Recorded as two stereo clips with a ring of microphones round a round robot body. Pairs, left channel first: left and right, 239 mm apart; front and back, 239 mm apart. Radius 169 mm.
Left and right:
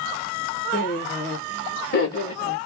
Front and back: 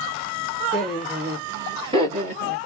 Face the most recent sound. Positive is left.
turn(degrees=135)